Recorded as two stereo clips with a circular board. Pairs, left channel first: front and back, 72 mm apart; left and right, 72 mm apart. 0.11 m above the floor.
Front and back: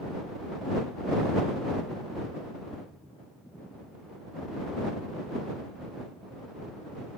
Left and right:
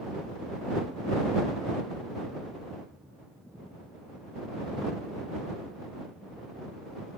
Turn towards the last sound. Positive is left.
No sound to turn to.